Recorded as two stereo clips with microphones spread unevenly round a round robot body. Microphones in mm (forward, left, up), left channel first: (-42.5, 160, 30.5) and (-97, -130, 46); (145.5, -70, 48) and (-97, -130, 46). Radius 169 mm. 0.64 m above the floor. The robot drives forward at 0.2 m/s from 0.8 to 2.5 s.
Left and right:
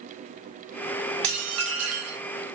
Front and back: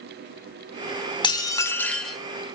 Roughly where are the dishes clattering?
Ahead right.